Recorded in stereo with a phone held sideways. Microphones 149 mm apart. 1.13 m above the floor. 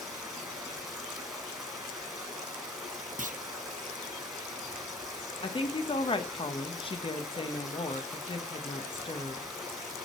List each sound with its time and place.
0.0 s running water: 5° right (ahead or behind), 3 m
3.2 s a clunk: 55° right (ahead or behind), 0.5 m
5.4 s a woman speaking: 35° left (ahead or behind), 0.9 m